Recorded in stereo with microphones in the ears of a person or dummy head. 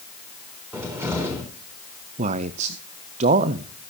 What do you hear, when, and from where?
0.7 s a cupboard door: 10° right (ahead or behind), 3.5 m
2.2 s a man speaking: 40° right (ahead or behind), 0.5 m